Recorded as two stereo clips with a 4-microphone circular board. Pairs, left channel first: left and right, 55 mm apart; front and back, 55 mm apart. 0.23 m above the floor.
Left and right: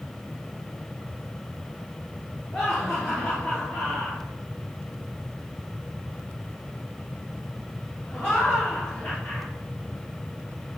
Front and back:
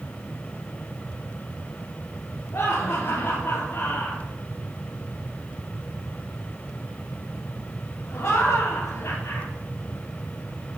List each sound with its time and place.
2.5 s laughter: 5° left, 3 m